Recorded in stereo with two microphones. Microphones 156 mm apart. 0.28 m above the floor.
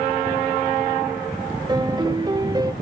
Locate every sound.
1.7 s a piano: 25° right (ahead or behind), 0.6 m